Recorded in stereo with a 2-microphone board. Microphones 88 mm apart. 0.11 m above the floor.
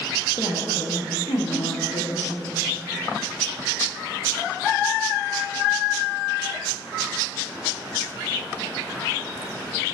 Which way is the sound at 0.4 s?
50° left (ahead or behind).